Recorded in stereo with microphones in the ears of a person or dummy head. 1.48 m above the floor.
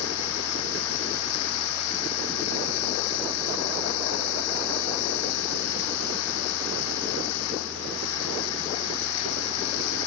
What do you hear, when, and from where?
0.0 s running water: 80° left